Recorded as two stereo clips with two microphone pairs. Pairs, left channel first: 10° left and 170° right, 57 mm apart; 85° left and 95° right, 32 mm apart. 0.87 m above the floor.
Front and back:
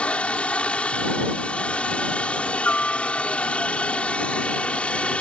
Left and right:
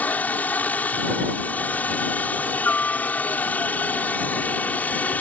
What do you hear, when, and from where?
0.0 s a helicopter: 75° left